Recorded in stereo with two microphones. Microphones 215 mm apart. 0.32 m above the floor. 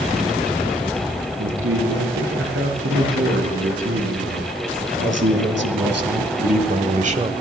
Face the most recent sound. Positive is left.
turn(degrees=-25)  # may be behind; listen again after turning